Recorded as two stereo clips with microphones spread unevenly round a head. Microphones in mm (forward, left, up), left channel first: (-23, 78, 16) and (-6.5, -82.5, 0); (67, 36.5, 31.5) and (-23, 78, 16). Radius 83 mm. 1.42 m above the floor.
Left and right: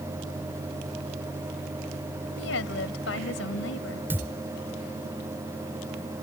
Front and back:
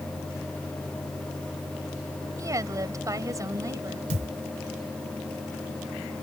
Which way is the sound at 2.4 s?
100° left.